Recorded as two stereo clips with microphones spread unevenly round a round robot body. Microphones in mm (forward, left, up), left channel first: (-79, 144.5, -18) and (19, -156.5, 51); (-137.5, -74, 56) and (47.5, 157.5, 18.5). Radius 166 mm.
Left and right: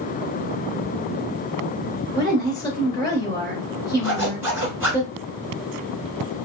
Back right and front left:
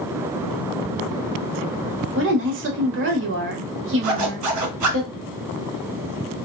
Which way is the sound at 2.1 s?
45° left.